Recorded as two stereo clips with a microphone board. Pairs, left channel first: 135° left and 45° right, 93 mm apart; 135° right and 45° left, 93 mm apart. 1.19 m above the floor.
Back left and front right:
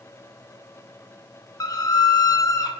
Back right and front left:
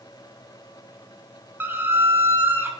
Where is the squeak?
105° left, 1.4 m.